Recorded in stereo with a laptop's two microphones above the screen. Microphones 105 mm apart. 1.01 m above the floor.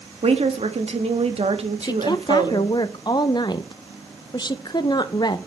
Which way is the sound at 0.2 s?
75° right (ahead or behind).